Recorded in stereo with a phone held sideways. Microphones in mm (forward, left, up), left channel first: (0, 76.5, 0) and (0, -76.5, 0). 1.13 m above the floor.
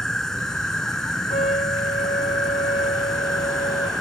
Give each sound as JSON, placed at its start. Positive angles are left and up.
{"t": 0.0, "sound": "an insect", "side_deg": 5}
{"t": 1.3, "sound": "a trumpet", "side_deg": 65}